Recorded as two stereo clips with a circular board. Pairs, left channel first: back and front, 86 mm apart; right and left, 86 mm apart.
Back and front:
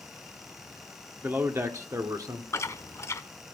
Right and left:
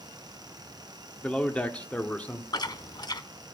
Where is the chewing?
125° right, 0.7 m.